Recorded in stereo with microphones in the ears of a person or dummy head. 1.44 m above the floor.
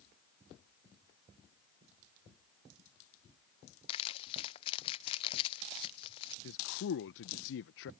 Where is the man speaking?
65° left (ahead or behind).